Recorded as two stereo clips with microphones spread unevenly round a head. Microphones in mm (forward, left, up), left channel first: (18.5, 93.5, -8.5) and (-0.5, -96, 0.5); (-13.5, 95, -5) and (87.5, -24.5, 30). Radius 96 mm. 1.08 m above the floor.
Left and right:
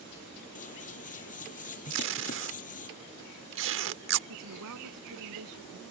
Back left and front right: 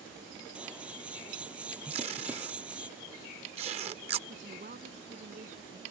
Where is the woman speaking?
105° right.